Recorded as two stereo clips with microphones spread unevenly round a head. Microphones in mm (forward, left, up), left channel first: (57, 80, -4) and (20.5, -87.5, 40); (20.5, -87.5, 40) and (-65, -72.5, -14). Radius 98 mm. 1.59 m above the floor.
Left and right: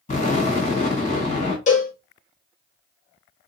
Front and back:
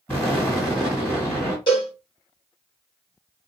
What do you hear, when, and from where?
0.1 s an explosion: 30° left, 2 m
1.7 s a cowbell: 30° left, 1.1 m